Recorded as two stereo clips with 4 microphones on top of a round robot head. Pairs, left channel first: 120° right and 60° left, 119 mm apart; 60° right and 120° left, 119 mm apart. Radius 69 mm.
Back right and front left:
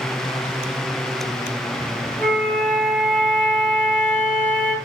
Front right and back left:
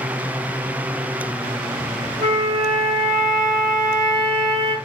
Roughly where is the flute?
Behind.